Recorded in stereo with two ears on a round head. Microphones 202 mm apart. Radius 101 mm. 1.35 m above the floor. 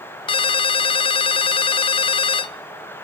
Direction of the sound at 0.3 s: 25° left (ahead or behind).